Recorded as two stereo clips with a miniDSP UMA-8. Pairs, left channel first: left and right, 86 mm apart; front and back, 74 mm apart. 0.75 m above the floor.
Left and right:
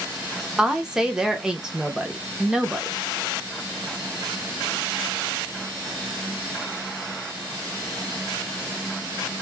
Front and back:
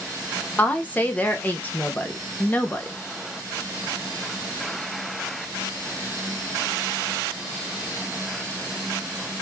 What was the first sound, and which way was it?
A woman speaking, 20° right.